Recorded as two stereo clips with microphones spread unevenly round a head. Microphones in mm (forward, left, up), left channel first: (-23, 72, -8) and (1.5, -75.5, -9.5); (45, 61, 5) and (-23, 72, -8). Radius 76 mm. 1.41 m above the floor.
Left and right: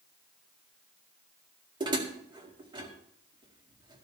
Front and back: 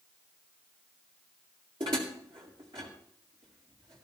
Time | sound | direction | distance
1.8 | dishes clattering | 140° right | 2.0 m